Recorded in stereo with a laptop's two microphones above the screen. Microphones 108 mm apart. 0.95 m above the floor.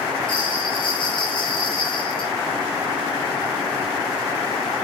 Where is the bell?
50° left (ahead or behind), 5 m.